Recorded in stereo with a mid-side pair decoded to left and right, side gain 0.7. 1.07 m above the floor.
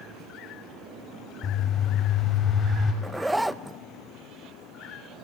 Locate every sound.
1.4 s a bird: 35° left, 6.5 m
3.0 s a zipper: 5° right, 0.5 m